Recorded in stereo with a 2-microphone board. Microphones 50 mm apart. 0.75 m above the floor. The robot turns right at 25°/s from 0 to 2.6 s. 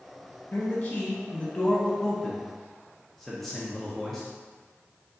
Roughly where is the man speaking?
Behind left.